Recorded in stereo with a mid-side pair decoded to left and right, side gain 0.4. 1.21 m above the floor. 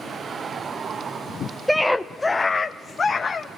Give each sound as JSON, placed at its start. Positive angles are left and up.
{"t": 1.7, "sound": "a scream", "azimuth_deg": -5, "distance_m": 0.7}